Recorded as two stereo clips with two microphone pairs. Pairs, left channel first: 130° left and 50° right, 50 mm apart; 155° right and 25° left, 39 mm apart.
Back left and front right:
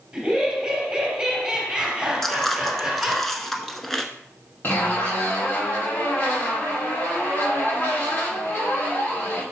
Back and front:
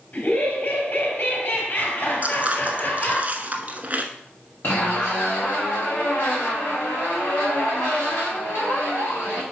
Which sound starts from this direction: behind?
A zipper, at 4.6 s.